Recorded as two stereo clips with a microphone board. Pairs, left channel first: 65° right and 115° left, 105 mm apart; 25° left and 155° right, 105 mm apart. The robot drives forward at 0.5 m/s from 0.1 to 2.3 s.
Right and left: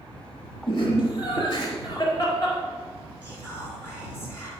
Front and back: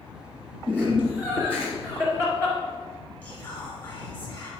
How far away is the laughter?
About 2 m.